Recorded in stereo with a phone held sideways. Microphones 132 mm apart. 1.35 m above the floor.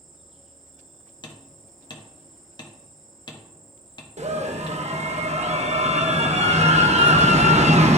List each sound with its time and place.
0.0 s an insect: centre (ahead or behind), 1.5 m
1.2 s hammering: 35° left (ahead or behind), 0.8 m
4.2 s a scream: 55° right (ahead or behind), 0.8 m